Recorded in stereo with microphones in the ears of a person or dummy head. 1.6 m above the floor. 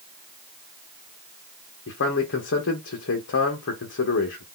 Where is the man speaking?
55° left (ahead or behind), 0.7 m.